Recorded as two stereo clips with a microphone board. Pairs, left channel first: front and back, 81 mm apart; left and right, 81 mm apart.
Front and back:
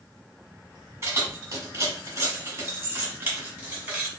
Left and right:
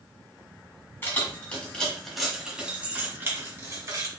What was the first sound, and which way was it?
Keys jangling, 140° left.